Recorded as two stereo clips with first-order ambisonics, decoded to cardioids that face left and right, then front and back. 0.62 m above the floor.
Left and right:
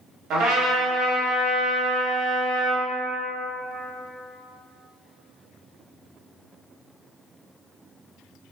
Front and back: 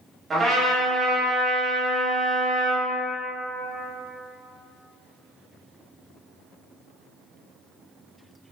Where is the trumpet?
110° right, 0.8 m.